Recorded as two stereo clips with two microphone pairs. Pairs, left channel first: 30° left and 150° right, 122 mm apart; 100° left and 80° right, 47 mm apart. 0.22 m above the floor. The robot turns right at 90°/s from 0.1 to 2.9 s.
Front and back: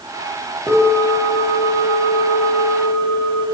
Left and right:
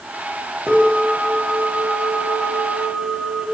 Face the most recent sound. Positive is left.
turn(degrees=-105)